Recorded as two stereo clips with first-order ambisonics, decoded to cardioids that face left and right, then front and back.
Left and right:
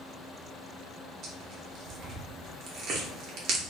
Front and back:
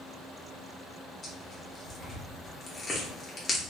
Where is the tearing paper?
70° right, 1.0 m.